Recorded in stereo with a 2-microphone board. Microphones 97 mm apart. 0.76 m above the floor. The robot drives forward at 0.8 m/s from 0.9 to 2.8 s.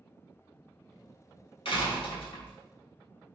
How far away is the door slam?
About 2.5 m.